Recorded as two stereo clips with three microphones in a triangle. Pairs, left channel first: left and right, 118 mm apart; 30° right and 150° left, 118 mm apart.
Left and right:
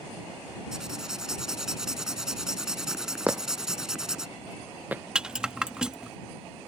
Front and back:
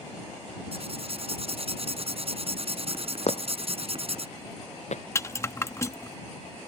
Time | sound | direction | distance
0.7 | writing | 175° right | ?
3.3 | footsteps | 15° right | ?
5.2 | a rattle | 15° right | ?